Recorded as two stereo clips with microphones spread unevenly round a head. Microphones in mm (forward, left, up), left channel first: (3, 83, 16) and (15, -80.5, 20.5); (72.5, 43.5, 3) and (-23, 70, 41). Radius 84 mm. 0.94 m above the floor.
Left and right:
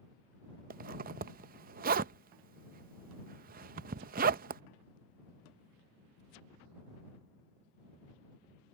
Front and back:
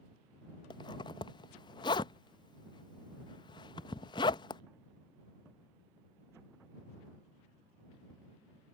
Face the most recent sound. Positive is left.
turn(degrees=-50)